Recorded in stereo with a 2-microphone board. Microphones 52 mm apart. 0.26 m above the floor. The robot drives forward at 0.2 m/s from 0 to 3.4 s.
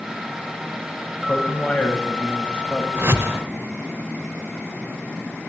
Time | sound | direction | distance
1.3 | a man speaking | 25° left (ahead or behind) | 1.0 m
3.0 | a whoosh | 55° right (ahead or behind) | 0.8 m